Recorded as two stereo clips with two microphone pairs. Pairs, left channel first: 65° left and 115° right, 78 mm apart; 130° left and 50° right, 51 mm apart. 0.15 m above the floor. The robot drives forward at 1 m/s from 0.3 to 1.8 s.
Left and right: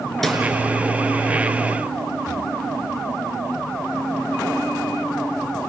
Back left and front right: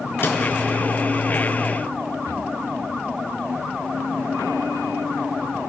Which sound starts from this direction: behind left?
A snare drum, at 0.2 s.